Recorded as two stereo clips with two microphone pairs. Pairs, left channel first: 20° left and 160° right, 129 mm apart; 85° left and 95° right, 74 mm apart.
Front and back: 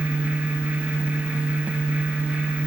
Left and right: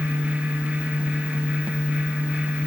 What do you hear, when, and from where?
Only background noise.